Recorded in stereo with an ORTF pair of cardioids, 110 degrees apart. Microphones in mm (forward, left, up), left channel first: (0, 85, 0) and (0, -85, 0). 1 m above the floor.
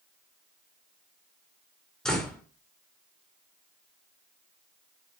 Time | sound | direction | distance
2.0 | a door slam | 5° left | 1.8 m